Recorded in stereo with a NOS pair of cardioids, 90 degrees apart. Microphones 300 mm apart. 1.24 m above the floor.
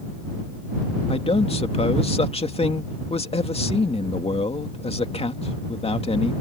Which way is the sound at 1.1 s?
20° left.